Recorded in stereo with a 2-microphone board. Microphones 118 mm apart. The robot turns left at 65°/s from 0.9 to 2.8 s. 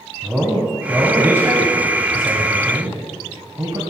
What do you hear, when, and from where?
0.2 s a man speaking: 5° right, 1.9 m; by 3.8 s 130° right, 1.9 m